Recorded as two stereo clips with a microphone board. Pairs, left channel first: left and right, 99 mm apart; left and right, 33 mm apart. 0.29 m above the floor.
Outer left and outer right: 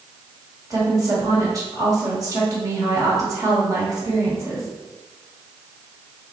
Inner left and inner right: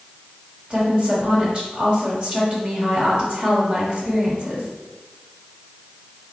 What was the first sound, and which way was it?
A woman speaking, 35° right (ahead or behind).